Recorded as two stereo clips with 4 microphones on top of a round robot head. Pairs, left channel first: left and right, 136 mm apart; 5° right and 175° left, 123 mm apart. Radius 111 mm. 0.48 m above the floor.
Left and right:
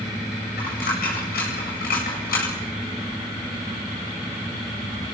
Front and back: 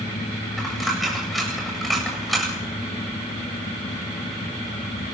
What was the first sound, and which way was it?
A dropped coin, 85° left.